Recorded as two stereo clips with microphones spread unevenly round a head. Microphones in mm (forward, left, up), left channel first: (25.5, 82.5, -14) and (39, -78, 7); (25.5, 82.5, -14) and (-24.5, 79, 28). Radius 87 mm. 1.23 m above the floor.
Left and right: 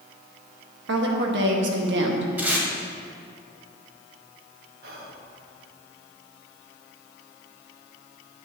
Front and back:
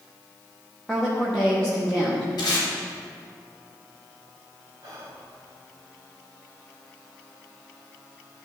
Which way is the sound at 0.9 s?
75° right.